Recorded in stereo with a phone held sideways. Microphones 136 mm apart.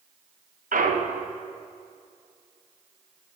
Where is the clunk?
85° right, 0.7 m.